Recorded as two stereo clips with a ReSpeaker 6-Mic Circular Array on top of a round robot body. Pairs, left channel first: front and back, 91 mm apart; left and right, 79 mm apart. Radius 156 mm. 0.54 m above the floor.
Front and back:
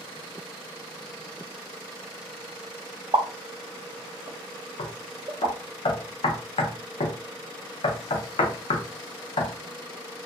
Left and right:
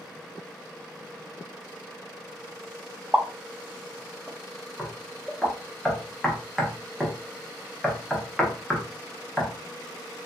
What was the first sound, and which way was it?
A pop, 160° right.